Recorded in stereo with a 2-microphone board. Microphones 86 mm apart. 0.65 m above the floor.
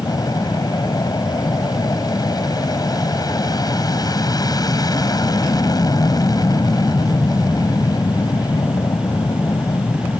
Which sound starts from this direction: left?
An aircraft, at 0.0 s.